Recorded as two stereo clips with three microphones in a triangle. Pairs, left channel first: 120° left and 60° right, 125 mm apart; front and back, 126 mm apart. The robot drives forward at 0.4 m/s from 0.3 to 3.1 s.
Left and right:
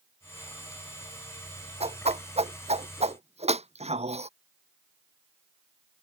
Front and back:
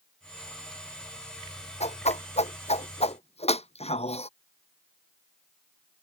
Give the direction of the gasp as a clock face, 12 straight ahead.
I don't hear a gasp.